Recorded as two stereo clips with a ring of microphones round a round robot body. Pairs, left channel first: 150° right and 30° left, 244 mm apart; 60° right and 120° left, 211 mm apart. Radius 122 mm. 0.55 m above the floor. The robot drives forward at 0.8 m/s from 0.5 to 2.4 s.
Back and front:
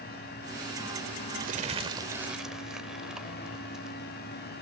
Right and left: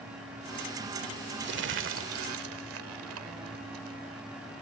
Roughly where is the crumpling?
Left.